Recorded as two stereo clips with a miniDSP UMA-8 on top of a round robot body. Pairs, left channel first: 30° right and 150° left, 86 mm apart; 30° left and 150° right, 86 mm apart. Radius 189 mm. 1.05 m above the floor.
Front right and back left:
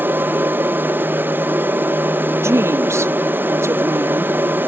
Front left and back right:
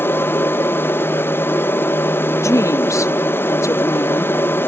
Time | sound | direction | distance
0.0 | an aircraft | 90° left | ?
2.4 | a woman speaking | 90° left | ?